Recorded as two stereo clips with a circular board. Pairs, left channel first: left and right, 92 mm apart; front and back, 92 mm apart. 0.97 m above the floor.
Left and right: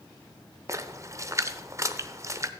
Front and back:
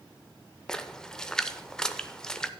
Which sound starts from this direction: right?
A splash, at 0.7 s.